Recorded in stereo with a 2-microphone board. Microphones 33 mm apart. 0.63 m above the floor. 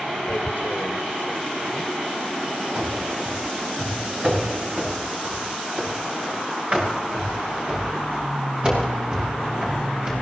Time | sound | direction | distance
0.3 | tearing paper | 60° left (ahead or behind) | 1.7 m
2.8 | running footsteps | 40° right (ahead or behind) | 6.5 m